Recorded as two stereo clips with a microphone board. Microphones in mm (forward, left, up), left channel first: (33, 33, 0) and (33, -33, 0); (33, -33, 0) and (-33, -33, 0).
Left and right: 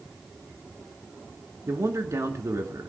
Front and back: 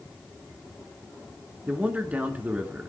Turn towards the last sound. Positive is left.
turn(degrees=-115)